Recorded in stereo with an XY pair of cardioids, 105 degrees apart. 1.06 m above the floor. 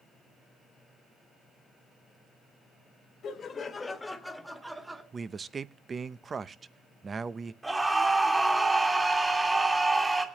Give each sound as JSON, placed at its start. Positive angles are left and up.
{"t": 3.2, "sound": "laughter", "azimuth_deg": 55, "distance_m": 1.7}
{"t": 5.1, "sound": "a man speaking", "azimuth_deg": -35, "distance_m": 0.6}
{"t": 7.6, "sound": "a scream", "azimuth_deg": -15, "distance_m": 2.5}